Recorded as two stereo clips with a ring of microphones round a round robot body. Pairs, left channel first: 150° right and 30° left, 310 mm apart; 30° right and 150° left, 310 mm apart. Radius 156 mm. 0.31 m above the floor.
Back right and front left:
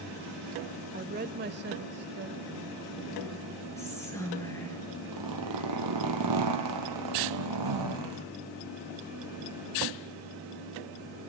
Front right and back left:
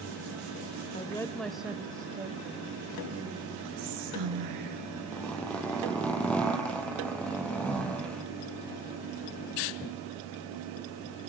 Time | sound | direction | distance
0.9 | a woman speaking | 15° left | 1.0 m
3.8 | whispering | 130° left | 6 m
5.1 | a zipper | 55° left | 3.5 m